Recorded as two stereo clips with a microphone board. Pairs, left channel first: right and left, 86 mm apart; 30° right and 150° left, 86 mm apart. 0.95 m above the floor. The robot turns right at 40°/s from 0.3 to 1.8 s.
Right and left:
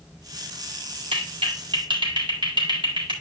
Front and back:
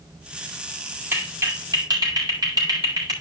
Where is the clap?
85° left, 4 m; by 3.1 s 115° left, 4 m.